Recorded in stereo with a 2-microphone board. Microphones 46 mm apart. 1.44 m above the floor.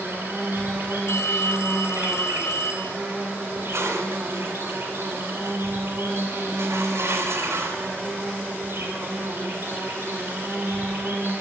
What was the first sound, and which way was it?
An insect, 60° right (ahead or behind).